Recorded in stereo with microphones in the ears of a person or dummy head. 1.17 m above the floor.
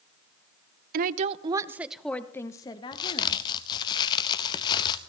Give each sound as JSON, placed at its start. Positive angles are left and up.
{"t": 0.9, "sound": "a woman speaking", "side_deg": -50, "distance_m": 0.6}
{"t": 2.9, "sound": "a crack", "side_deg": 25, "distance_m": 0.7}